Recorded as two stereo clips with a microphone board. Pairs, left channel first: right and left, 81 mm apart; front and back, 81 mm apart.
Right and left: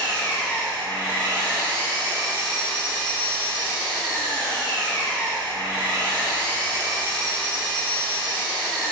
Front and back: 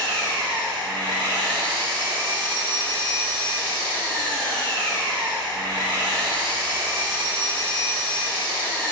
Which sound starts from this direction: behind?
An engine running, at 0.0 s.